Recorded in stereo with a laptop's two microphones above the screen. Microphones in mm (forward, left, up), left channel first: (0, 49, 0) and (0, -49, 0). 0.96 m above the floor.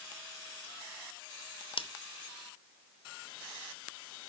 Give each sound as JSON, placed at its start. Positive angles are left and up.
{"t": 1.8, "sound": "scissors", "side_deg": 65, "distance_m": 0.8}